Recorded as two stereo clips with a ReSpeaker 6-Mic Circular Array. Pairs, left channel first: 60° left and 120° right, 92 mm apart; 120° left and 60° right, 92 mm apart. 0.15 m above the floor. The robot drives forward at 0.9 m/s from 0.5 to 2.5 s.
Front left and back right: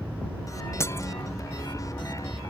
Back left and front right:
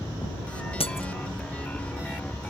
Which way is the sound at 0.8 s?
120° left.